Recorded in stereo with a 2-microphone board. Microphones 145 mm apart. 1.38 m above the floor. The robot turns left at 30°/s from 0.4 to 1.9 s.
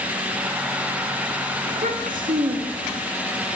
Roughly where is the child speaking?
Right.